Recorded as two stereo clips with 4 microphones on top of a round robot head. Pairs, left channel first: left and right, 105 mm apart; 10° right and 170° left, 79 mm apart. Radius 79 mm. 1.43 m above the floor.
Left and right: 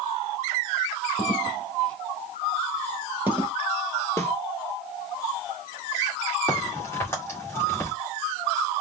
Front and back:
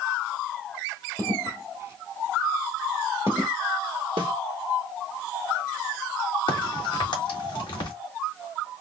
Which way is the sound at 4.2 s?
155° left.